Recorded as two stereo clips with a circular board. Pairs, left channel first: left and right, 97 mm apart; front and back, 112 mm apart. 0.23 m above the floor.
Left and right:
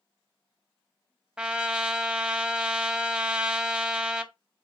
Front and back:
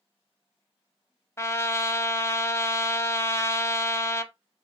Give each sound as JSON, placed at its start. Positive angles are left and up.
{"t": 1.4, "sound": "a trumpet", "azimuth_deg": -20, "distance_m": 0.5}